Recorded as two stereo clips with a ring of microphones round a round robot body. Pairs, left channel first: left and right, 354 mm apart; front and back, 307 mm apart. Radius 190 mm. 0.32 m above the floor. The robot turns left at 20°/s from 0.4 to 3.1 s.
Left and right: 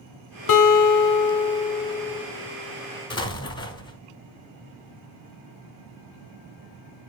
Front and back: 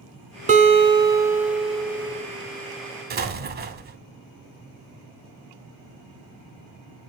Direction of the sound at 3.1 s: 155° left.